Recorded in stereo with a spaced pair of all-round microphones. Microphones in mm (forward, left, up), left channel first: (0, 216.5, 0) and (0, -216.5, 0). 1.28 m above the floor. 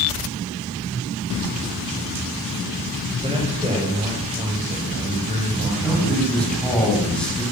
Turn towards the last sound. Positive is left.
turn(degrees=0)  # may be behind; listen again after turning